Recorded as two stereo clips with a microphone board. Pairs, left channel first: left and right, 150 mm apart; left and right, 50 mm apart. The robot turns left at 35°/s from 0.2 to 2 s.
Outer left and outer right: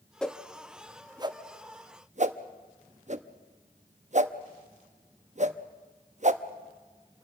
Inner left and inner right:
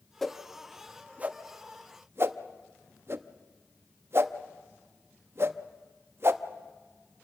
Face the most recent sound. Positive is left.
turn(degrees=-50)  # may be behind; listen again after turning